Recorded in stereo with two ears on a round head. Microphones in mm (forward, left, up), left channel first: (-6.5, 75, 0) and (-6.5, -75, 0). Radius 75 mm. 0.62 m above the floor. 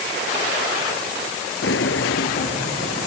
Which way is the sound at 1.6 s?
75° left (ahead or behind).